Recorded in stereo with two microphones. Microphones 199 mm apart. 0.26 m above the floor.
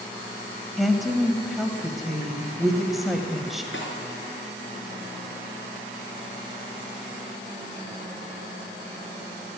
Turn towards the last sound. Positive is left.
turn(degrees=70)  # may be behind; listen again after turning